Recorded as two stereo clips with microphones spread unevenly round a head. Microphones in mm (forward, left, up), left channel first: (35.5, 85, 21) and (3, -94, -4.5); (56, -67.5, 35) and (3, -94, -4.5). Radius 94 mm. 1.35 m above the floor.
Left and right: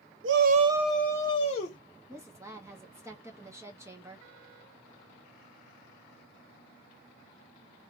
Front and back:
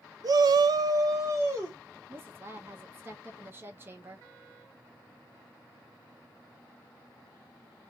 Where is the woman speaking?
170° right, 0.8 m.